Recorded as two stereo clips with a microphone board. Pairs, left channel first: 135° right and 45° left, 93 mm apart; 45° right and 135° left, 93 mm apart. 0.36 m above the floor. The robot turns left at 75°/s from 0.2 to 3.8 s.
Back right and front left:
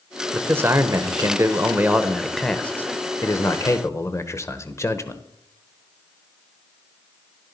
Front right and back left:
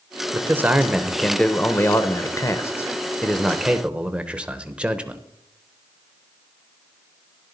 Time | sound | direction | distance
0.3 | a man speaking | 105° left | 0.9 m